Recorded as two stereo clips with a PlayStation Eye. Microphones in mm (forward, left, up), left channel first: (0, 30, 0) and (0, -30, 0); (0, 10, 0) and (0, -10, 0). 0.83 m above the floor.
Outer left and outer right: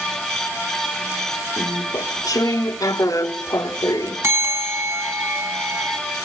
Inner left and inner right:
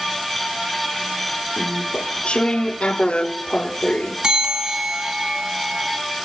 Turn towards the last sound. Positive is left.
turn(degrees=-45)  # may be behind; listen again after turning